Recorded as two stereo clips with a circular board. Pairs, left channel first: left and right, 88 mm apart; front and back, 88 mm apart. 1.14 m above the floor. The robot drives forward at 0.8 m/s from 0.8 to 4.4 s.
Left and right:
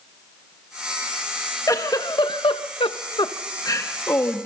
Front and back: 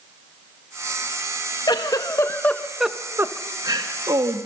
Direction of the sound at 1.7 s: 40° left.